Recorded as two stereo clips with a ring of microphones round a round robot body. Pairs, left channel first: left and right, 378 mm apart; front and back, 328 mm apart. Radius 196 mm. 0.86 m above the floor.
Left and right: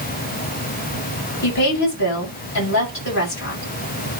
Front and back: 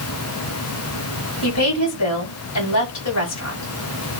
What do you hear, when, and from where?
1.4 s a woman speaking: 30° left, 7.5 m